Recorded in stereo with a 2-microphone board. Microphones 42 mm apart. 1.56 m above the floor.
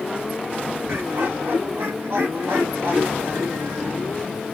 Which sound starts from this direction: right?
Laughter, at 0.9 s.